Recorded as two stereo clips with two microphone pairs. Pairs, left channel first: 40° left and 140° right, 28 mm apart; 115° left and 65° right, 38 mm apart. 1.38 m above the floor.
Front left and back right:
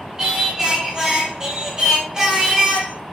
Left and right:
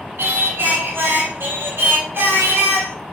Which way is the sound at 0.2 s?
75° right.